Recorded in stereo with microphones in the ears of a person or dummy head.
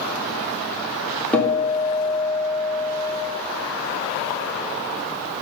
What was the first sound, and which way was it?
A guitar, 10° left (ahead or behind).